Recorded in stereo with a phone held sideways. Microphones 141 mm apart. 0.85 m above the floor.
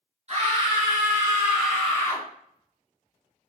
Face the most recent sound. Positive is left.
turn(degrees=20)  # may be behind; listen again after turning